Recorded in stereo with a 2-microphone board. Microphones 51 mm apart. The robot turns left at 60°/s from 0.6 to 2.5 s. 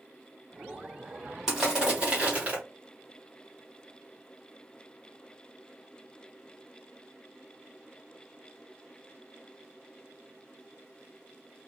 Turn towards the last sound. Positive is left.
turn(degrees=-75)